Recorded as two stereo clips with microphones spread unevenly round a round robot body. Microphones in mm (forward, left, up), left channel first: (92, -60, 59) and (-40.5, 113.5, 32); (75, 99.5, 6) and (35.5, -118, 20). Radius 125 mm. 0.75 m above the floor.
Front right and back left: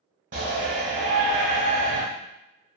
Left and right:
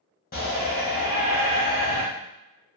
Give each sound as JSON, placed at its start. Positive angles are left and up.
{"t": 0.3, "sound": "a shout", "azimuth_deg": 105, "distance_m": 1.0}